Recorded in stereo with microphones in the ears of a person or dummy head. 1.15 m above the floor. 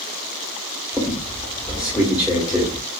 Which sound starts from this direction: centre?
A squeak, at 0.9 s.